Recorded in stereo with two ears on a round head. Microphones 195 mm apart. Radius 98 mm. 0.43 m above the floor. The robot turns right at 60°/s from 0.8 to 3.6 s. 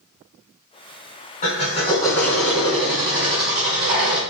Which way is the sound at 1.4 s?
110° left.